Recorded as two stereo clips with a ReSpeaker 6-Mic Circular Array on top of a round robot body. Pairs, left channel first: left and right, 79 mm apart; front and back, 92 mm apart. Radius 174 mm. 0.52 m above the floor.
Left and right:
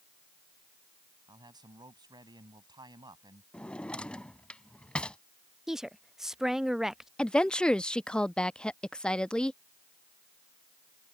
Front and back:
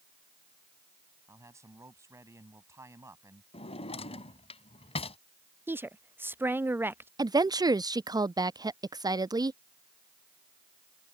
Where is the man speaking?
120° right.